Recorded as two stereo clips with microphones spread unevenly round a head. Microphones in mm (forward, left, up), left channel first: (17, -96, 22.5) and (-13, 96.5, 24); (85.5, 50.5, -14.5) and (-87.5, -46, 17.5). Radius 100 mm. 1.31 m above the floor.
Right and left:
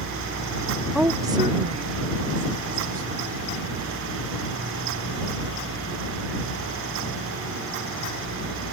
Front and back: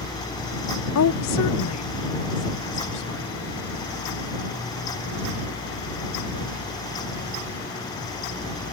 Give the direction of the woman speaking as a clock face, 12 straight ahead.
12 o'clock.